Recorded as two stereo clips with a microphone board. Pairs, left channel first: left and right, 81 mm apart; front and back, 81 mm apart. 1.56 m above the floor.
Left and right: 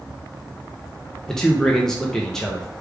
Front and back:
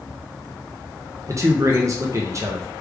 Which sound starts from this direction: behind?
A man speaking, at 1.3 s.